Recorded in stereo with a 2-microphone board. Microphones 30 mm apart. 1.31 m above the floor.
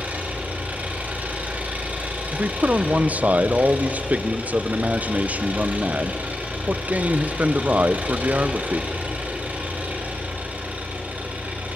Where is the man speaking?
55° right (ahead or behind), 0.8 m.